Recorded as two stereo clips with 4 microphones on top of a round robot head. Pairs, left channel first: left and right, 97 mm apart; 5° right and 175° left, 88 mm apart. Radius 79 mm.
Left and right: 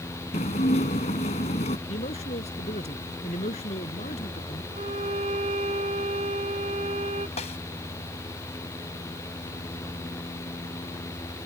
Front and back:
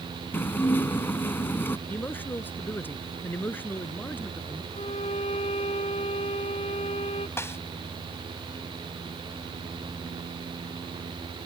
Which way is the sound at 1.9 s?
65° left.